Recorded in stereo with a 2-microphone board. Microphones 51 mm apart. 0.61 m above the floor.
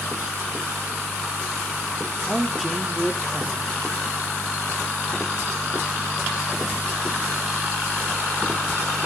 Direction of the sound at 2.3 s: Centre (ahead or behind).